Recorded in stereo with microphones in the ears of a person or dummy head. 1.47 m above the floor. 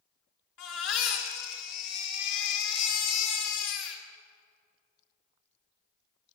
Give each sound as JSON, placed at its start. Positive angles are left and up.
{"t": 0.6, "sound": "a baby crying", "side_deg": 70, "distance_m": 2.5}